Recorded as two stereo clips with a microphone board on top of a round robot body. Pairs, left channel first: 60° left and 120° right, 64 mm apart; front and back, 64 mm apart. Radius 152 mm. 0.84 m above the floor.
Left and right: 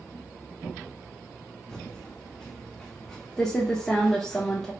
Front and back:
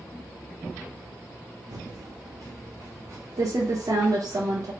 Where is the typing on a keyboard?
140° left, 0.8 m.